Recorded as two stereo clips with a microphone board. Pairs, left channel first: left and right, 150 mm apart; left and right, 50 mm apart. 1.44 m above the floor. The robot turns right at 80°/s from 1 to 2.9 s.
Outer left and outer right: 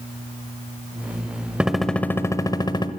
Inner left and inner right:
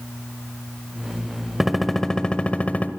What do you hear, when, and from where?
1.6 s a gunshot: 5° right (ahead or behind), 1.3 m; by 2.9 s 30° left (ahead or behind), 1.3 m